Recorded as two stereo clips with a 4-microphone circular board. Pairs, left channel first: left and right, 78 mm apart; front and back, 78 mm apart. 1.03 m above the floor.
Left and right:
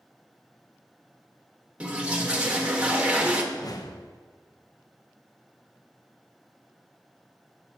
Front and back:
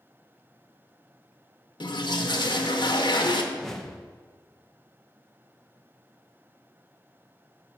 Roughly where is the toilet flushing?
Ahead.